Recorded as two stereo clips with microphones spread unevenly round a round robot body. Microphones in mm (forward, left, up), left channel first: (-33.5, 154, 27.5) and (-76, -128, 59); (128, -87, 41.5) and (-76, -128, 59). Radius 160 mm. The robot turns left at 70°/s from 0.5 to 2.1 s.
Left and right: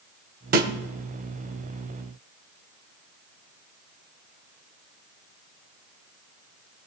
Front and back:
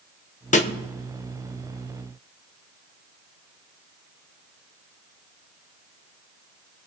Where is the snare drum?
35° right, 1.2 m; by 0.7 s 45° right, 1.2 m.